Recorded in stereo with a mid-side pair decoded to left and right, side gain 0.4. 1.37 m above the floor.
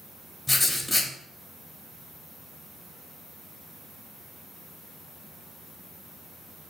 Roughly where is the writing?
Ahead left.